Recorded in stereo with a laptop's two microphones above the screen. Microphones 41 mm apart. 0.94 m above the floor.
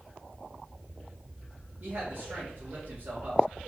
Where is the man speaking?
60° right (ahead or behind), 1.8 m.